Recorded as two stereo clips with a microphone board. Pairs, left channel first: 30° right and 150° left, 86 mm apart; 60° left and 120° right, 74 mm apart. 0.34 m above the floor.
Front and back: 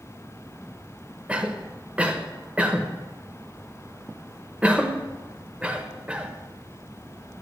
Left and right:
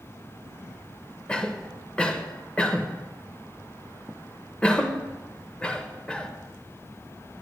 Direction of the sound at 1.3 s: 105° left.